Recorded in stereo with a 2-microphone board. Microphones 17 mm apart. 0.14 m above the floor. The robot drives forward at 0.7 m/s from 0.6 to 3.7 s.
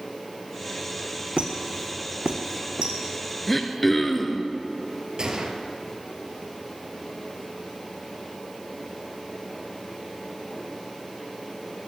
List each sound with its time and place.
1.4 s a squeak: 80° right, 1.4 m; by 2.9 s 55° right (ahead or behind), 1.6 m
3.5 s throat clearing: 10° left (ahead or behind), 1.2 m
5.2 s a gunshot: 45° right (ahead or behind), 1.5 m